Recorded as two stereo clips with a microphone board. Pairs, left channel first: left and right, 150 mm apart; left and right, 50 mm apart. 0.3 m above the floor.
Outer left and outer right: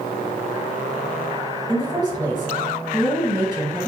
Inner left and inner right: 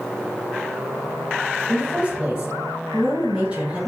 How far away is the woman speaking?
About 1.8 m.